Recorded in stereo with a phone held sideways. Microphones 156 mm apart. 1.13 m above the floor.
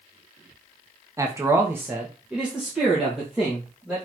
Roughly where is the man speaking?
Right.